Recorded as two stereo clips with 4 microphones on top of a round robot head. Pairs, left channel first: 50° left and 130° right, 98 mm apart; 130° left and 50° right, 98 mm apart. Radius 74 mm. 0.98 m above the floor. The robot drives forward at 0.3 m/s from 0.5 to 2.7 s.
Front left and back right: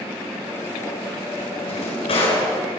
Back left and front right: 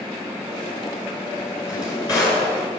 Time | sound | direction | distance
1.6 | a drawer | 75° left | 10 m